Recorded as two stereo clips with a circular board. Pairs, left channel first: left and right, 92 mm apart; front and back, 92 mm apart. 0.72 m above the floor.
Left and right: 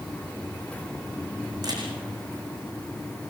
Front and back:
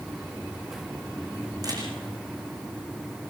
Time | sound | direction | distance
1.6 | a camera shutter | 135° right | 7 m